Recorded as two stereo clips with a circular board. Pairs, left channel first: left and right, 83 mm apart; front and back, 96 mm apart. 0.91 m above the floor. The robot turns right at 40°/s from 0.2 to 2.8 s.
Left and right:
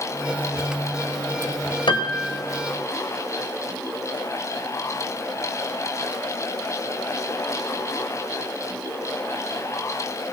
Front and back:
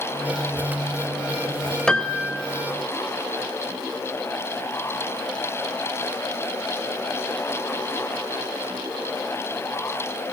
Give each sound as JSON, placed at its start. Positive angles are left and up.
{"t": 1.9, "sound": "a piano", "azimuth_deg": 80, "distance_m": 2.0}